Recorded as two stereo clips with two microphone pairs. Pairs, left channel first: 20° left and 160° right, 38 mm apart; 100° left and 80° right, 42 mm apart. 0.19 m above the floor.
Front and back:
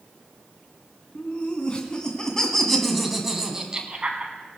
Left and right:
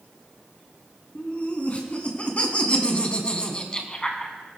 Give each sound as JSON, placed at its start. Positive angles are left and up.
{"t": 1.1, "sound": "laughter", "azimuth_deg": 60, "distance_m": 2.5}